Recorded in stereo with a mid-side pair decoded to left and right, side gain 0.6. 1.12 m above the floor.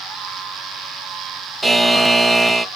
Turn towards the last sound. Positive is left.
turn(degrees=-5)